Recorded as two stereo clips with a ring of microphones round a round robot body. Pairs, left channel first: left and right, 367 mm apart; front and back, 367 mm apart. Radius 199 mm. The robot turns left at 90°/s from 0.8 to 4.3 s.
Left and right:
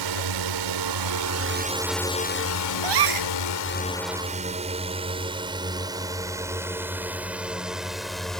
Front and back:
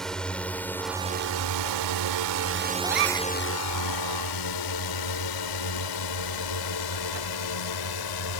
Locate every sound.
0.0 s a drone: 90° right; by 8.4 s straight ahead
2.8 s a gasp: 100° right; by 3.3 s 140° right